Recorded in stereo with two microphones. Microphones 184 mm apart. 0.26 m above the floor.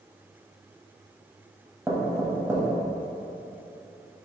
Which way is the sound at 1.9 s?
15° right (ahead or behind).